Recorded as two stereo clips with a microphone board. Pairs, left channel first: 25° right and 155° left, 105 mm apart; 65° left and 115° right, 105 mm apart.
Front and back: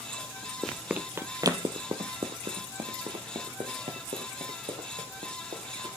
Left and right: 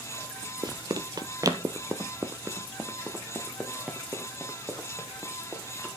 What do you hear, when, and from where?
0.6 s running footsteps: 105° right, 0.6 m; by 5.9 s 165° left, 3 m